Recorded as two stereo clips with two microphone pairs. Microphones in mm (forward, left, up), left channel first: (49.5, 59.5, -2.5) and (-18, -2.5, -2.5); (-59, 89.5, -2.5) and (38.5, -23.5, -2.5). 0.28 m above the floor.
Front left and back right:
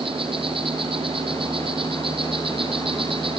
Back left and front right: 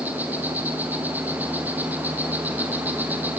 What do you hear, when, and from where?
0.0 s an insect: 130° right, 3 m